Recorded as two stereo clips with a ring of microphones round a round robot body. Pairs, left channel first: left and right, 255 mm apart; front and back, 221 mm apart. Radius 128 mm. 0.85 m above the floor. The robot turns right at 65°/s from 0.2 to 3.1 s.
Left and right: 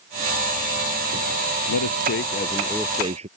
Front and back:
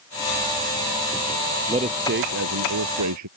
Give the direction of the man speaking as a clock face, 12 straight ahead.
8 o'clock.